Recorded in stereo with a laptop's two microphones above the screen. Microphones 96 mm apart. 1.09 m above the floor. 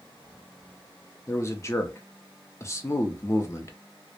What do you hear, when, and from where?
1.3 s a man speaking: 30° left (ahead or behind), 0.5 m